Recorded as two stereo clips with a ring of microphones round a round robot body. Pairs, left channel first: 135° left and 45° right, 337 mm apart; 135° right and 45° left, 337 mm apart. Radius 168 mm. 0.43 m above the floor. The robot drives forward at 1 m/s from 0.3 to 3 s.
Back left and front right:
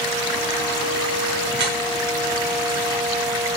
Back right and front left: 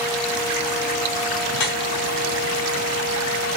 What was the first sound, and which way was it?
Dripping, 100° right.